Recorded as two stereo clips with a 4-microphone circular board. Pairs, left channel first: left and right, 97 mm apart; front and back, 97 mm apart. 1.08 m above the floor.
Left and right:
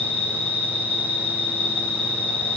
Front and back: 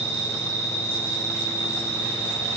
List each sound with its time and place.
0.0 s an insect: 110° right, 7 m